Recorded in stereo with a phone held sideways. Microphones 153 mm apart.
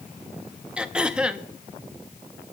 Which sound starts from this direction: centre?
Throat clearing, at 0.8 s.